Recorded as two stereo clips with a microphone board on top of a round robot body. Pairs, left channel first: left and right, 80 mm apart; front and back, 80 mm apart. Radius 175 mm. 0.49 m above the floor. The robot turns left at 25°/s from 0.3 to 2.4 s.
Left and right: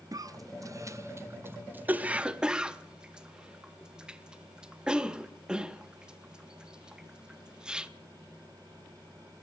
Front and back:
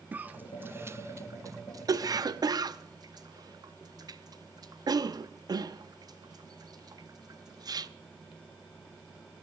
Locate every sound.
0.1 s a cough: 115° right, 1.0 m; by 7.9 s 165° right, 1.0 m